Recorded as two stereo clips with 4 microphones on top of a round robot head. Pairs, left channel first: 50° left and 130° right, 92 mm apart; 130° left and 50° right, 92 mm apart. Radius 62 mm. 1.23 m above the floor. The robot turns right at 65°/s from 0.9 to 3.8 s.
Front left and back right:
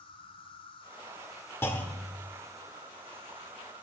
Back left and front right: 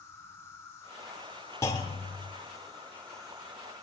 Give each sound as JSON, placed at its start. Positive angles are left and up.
{"t": 0.0, "sound": "an insect", "azimuth_deg": 65, "distance_m": 2.0}
{"t": 1.6, "sound": "a clunk", "azimuth_deg": 95, "distance_m": 0.9}